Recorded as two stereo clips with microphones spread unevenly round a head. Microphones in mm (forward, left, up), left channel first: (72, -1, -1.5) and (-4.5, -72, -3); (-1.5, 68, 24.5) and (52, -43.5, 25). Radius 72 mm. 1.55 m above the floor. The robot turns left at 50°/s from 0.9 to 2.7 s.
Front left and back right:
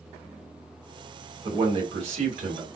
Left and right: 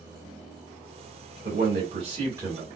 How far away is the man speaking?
About 2.5 m.